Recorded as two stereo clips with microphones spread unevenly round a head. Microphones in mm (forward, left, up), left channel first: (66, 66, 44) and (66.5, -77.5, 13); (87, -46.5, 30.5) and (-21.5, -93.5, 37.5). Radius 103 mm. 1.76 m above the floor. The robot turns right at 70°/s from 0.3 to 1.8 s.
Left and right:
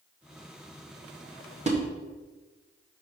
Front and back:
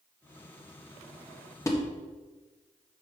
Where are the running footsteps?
I don't hear running footsteps.